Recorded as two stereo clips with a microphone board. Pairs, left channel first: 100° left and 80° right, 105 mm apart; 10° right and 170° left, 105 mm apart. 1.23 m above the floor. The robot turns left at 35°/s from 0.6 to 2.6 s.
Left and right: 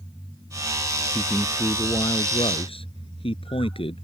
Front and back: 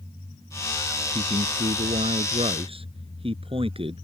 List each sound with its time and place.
1.1 s a man speaking: 175° right; by 4.0 s 135° left